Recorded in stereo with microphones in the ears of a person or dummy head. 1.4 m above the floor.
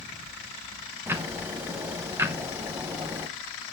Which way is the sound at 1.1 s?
10° right (ahead or behind).